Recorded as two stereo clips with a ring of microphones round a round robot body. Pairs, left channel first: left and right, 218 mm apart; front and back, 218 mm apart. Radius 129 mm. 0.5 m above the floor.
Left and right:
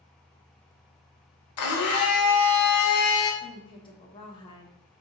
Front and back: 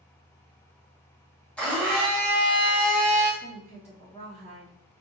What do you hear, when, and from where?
1.6 s a blender: 85° left, 0.9 m
3.4 s a woman speaking: 35° left, 1.5 m